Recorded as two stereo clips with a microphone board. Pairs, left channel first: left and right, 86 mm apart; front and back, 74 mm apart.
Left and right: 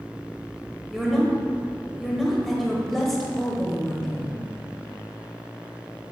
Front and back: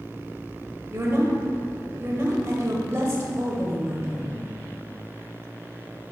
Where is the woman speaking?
175° left, 1.2 m.